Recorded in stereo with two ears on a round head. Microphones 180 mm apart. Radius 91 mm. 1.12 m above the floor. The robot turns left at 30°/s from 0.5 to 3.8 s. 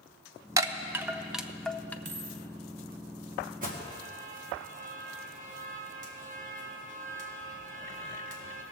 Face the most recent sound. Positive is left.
turn(degrees=-40)  # may be behind; listen again after turning